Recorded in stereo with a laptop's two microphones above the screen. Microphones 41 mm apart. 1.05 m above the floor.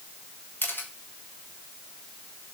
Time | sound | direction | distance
0.6 | a camera shutter | 65° left (ahead or behind) | 1.5 m